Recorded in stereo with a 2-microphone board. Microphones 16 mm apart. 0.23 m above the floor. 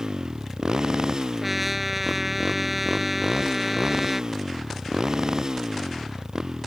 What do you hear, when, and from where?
0.0 s a motorcycle: 40° right (ahead or behind); by 6.7 s 35° right (ahead or behind)
1.4 s a trumpet: 10° right (ahead or behind)